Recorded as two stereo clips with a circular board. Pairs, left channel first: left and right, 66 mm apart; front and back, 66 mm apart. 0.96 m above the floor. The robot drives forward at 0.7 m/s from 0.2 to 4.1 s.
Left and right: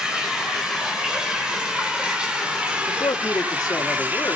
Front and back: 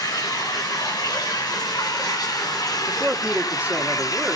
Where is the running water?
10° right, 5 m; by 4.3 s 25° right, 2 m.